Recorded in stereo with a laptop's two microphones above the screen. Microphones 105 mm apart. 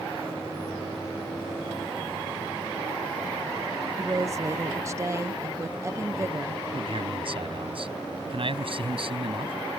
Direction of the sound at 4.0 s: 25° right (ahead or behind).